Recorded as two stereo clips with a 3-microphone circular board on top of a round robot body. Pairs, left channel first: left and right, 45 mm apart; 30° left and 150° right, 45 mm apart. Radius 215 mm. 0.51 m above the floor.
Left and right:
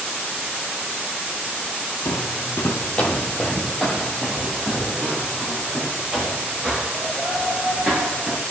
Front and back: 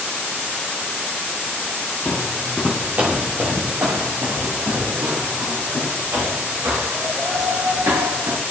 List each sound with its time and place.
2.0 s footsteps: 100° left, 1.0 m; by 8.4 s 155° right, 5 m